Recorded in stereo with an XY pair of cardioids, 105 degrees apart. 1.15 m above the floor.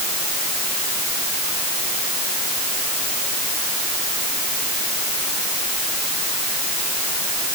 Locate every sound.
Only background noise.